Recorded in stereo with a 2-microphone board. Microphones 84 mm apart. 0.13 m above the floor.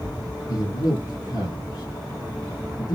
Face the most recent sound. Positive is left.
turn(degrees=50)  # may be behind; listen again after turning